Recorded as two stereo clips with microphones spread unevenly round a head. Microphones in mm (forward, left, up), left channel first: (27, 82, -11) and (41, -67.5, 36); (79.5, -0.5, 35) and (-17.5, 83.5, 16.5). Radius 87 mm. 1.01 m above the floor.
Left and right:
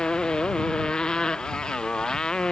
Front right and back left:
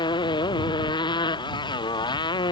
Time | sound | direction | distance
0.0 | a motorcycle | 10° left | ?